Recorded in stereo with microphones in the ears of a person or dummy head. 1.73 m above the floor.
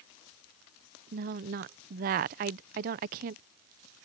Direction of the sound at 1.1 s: 35° right (ahead or behind).